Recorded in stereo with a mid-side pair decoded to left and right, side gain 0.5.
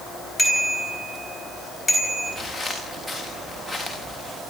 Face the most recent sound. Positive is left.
turn(degrees=5)